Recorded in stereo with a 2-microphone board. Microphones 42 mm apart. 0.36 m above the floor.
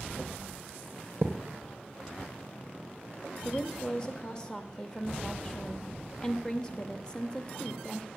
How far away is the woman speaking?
About 0.8 m.